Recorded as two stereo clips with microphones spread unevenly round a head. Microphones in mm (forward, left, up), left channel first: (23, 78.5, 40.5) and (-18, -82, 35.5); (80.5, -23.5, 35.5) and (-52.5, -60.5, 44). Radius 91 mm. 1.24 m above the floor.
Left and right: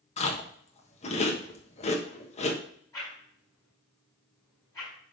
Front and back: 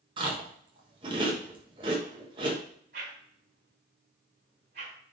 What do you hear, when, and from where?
0.2 s chewing: 130° left, 1.2 m
2.9 s a whoosh: 145° left, 4 m